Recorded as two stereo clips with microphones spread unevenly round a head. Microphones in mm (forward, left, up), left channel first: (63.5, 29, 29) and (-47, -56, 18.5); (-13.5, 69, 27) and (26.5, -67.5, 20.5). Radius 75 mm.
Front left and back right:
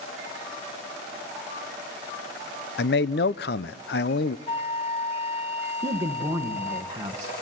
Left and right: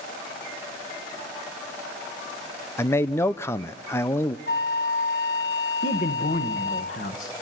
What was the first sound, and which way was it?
A man speaking, 35° left.